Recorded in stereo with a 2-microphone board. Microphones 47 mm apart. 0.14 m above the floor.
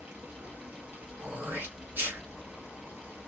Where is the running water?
35° right (ahead or behind), 1.3 m.